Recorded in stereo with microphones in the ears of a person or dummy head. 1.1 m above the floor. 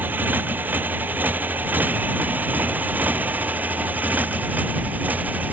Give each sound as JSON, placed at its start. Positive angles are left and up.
{"t": 0.0, "sound": "a motorcycle", "side_deg": -15}